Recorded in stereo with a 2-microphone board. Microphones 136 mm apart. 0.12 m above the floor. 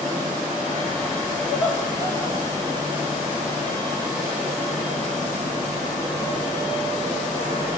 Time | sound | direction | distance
1.5 | laughter | 35° left (ahead or behind) | 9.5 m